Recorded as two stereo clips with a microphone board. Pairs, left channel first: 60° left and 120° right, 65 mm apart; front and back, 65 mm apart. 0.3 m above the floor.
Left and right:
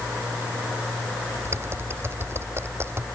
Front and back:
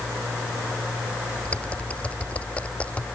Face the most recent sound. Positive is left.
turn(degrees=-70)